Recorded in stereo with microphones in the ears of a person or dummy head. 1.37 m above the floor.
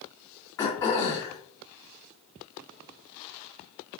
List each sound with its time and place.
0.6 s throat clearing: 20° left (ahead or behind), 1.6 m